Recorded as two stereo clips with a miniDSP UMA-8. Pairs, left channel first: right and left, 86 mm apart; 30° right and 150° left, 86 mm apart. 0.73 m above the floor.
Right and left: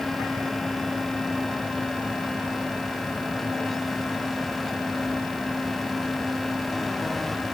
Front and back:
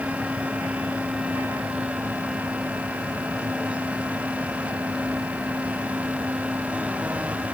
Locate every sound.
Only background noise.